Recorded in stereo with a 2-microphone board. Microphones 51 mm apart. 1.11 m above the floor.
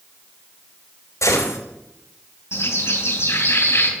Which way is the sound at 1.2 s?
85° left.